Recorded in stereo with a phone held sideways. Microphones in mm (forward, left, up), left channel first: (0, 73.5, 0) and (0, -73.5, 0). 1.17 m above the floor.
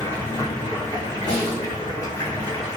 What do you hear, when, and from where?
0.0 s running water: 20° left (ahead or behind), 1.0 m
1.3 s a snare drum: 25° left (ahead or behind), 1.3 m